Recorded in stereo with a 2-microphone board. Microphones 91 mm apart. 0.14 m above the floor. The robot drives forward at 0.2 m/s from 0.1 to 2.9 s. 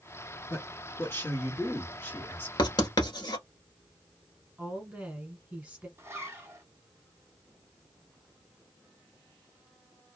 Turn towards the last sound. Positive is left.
turn(degrees=-30)  # may be behind; listen again after turning